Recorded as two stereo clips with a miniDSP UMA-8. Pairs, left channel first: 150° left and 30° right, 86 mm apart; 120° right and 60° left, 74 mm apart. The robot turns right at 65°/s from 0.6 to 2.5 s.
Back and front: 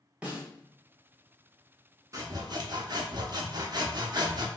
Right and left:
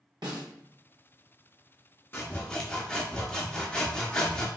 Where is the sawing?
70° right, 0.7 m; by 4.5 s 45° right, 0.7 m.